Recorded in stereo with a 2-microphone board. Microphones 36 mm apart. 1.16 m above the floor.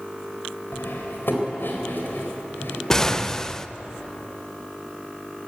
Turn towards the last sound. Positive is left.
turn(degrees=15)  # may be behind; listen again after turning